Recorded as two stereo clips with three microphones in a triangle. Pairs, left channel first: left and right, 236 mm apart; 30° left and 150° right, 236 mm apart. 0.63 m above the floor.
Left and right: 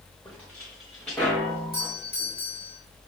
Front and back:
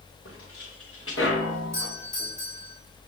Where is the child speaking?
I don't hear a child speaking.